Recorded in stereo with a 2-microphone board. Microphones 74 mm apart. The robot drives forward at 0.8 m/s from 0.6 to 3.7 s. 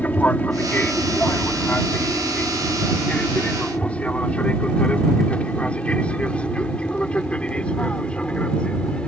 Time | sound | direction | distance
0.0 | an aircraft | 20° left (ahead or behind) | ?